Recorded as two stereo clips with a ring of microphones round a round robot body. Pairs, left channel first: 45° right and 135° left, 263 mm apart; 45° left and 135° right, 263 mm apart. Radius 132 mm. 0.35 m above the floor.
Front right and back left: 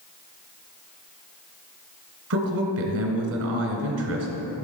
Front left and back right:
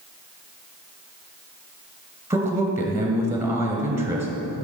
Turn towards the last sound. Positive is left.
turn(degrees=145)